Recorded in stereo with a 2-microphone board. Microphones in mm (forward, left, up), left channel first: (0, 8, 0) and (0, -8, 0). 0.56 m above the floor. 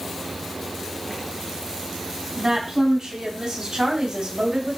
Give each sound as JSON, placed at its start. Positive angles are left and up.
{"t": 2.4, "sound": "a woman speaking", "side_deg": -45, "distance_m": 5.5}